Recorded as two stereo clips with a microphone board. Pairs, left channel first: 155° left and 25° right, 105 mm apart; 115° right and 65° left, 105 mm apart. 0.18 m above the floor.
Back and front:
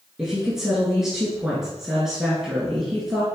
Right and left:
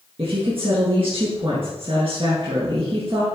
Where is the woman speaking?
60° left, 1.9 m.